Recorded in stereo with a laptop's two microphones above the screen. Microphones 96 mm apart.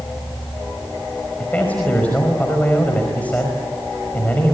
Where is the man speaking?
15° left (ahead or behind), 5 m.